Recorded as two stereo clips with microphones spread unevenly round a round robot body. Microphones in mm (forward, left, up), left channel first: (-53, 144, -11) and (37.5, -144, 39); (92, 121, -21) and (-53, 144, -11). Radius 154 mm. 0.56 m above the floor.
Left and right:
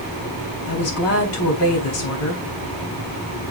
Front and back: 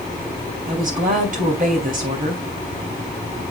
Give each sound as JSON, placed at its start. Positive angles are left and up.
{"t": 0.7, "sound": "a woman speaking", "azimuth_deg": 145, "distance_m": 3.0}